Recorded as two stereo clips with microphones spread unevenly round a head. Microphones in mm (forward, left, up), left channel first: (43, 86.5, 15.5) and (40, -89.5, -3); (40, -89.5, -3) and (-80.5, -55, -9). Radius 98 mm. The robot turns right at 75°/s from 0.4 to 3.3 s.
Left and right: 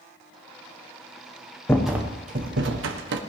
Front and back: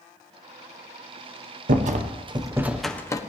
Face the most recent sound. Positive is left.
turn(degrees=-70)